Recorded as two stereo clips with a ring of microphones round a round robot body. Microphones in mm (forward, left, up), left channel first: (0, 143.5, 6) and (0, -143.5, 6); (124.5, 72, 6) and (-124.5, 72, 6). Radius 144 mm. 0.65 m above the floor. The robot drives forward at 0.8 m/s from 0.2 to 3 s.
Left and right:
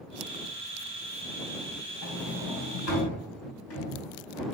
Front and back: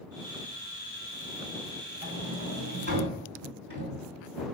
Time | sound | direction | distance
2.0 | a sliding door | 125° left | 3.5 m